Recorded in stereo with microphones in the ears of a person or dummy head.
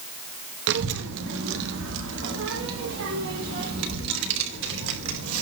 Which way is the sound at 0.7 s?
70° right (ahead or behind).